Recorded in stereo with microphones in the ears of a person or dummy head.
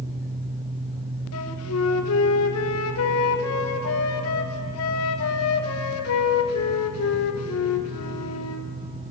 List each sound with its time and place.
1.3 s a flute: 80° left, 1.3 m